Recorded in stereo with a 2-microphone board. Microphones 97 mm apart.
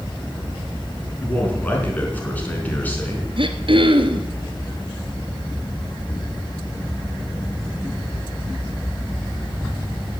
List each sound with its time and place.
1.2 s a man speaking: 20° left (ahead or behind), 4.5 m
3.4 s throat clearing: 70° right (ahead or behind), 1.5 m